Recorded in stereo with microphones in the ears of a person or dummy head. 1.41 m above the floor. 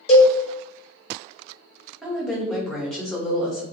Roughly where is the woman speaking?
Centre.